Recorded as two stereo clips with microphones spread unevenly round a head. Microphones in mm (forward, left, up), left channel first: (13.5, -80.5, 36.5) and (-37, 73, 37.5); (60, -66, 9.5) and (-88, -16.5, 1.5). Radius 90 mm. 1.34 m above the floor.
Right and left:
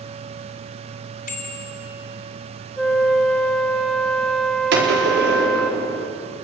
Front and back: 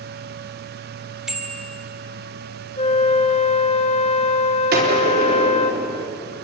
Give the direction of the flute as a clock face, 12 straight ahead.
11 o'clock.